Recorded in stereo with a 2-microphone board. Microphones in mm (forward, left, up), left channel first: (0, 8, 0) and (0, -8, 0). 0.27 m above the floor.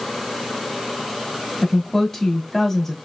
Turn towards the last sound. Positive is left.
turn(degrees=10)  # may be behind; listen again after turning